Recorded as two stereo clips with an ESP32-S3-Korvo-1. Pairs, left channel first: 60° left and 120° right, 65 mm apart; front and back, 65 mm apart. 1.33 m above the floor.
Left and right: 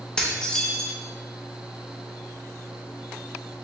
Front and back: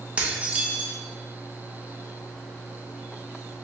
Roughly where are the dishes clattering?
Behind left.